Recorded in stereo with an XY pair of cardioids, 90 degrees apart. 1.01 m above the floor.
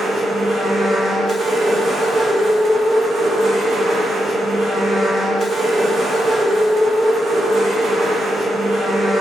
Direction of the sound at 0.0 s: 60° right.